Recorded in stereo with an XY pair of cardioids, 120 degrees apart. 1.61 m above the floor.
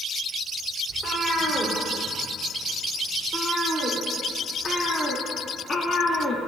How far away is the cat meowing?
About 3.5 m.